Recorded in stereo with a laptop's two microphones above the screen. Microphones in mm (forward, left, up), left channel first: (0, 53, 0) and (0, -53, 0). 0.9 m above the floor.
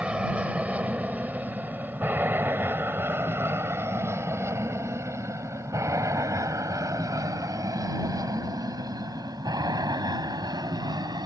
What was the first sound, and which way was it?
An aircraft, 10° right (ahead or behind).